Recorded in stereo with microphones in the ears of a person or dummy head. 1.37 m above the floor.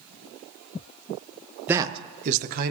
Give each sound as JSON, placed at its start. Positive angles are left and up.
{"t": 1.7, "sound": "a man speaking", "side_deg": -10, "distance_m": 0.5}